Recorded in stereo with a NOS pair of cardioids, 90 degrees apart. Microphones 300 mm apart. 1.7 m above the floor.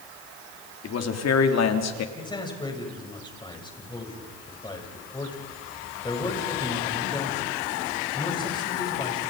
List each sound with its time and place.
0.8 s a man speaking: 55° left, 4 m; by 2.0 s 65° left, 3.5 m
2.1 s a man speaking: 15° left, 8 m